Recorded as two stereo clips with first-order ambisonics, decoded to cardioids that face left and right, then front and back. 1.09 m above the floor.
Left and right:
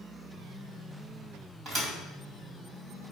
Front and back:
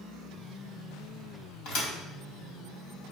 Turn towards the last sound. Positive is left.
turn(degrees=-25)